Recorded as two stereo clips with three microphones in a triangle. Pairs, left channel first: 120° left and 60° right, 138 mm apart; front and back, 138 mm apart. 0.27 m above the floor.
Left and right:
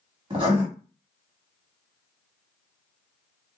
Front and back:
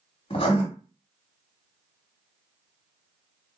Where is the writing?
25° right, 1.6 m.